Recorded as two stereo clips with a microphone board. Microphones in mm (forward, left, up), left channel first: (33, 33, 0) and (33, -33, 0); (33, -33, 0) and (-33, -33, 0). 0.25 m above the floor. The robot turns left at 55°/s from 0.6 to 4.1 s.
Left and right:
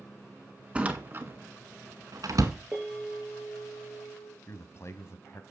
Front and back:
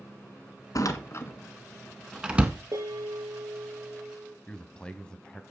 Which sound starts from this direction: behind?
A bell, at 2.7 s.